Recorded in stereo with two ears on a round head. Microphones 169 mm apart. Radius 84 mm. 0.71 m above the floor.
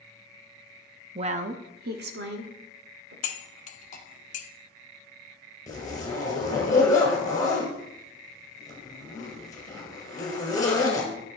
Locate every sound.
1.1 s a woman speaking: 30° right (ahead or behind), 0.6 m; by 3.1 s 65° right (ahead or behind), 2 m
3.2 s cutlery clinking: 40° left (ahead or behind), 0.9 m
5.7 s a zipper: 20° left (ahead or behind), 2.5 m